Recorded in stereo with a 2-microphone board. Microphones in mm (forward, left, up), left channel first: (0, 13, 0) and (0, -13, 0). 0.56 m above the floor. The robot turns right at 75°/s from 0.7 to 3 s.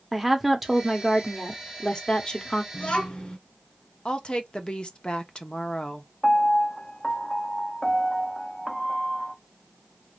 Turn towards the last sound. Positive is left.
turn(degrees=15)  # may be behind; listen again after turning